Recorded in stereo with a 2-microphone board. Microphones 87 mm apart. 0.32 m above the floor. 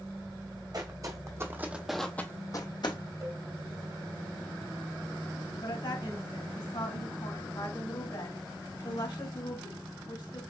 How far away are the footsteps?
About 1.2 m.